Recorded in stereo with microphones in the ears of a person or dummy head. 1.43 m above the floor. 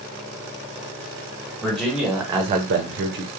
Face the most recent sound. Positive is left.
turn(degrees=-55)  # may be behind; listen again after turning